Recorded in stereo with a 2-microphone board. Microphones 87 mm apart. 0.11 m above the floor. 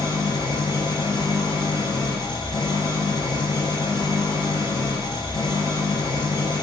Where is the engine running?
60° left (ahead or behind), 1.9 m.